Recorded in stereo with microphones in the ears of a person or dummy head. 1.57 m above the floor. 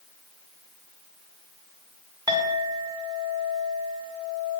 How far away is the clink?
About 0.9 m.